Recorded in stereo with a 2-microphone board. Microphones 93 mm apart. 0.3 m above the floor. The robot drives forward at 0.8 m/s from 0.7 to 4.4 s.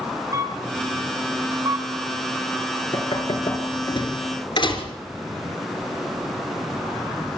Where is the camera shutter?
35° right (ahead or behind), 3 m; by 1.9 s 50° right (ahead or behind), 2.5 m.